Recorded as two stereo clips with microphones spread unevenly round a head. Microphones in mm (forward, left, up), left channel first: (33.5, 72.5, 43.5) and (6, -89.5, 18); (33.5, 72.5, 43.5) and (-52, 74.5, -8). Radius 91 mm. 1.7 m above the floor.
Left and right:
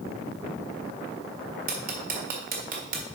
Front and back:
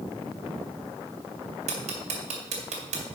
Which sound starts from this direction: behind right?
Ticking, at 1.7 s.